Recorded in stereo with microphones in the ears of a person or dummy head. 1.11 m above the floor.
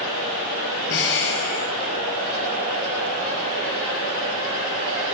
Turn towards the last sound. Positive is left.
turn(degrees=70)  # may be behind; listen again after turning